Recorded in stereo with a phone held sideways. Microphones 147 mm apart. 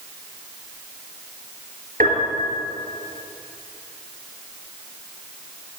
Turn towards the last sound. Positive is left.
turn(degrees=-80)